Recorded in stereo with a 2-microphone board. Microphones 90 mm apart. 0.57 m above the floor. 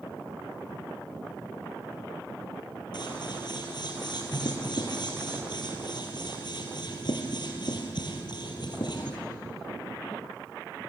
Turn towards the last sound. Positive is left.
turn(degrees=60)  # may be behind; listen again after turning